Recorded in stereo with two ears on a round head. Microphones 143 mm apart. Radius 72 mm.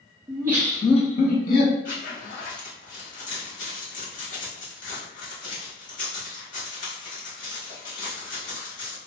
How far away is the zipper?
About 1.9 m.